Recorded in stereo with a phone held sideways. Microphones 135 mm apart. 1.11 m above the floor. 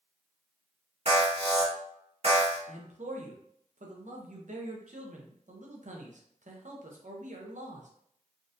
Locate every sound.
1.1 s an alarm: 50° right (ahead or behind), 1.9 m
2.7 s a man speaking: 65° right (ahead or behind), 0.8 m